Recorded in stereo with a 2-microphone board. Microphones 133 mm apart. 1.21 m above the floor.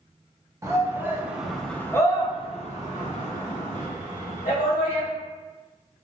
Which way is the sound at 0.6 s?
20° right (ahead or behind).